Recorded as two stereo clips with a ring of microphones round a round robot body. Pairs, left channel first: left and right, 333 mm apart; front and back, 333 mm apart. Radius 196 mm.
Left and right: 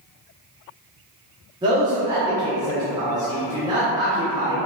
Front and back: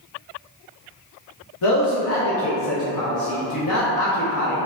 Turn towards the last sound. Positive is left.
turn(degrees=-15)